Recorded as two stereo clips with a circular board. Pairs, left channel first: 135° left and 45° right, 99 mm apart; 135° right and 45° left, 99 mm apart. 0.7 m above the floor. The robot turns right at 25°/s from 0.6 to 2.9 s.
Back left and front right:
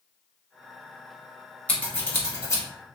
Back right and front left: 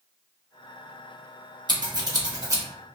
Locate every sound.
1.7 s scissors: 65° left, 1.2 m; by 2.6 s 85° left, 1.2 m